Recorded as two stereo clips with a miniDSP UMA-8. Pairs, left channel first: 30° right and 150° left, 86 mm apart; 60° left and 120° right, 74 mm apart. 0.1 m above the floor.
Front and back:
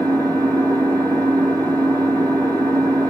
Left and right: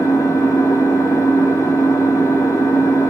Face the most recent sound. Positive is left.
turn(degrees=100)